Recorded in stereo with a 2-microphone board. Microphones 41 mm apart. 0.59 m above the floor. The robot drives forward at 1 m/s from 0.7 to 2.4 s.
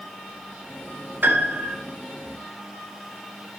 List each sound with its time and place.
1.2 s a piano: 55° right (ahead or behind), 2.5 m; by 1.8 s 60° right (ahead or behind), 2.5 m